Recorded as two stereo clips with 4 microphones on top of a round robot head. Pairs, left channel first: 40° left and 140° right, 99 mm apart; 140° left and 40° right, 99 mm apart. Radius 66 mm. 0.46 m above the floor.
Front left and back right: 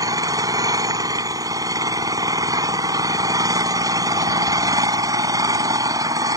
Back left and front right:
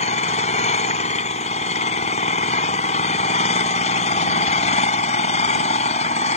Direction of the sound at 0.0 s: 160° left.